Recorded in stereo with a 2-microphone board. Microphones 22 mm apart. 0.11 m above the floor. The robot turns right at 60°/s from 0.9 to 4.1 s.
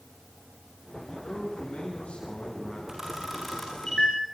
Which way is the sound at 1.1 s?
45° left.